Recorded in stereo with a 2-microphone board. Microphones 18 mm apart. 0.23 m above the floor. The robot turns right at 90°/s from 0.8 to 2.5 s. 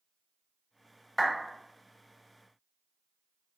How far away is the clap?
About 1.2 m.